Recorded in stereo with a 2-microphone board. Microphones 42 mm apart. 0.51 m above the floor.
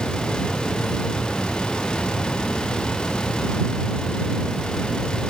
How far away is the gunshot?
I don't hear a gunshot.